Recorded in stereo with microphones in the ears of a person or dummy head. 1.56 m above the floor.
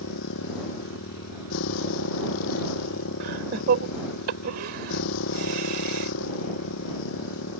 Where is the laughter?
60° right (ahead or behind).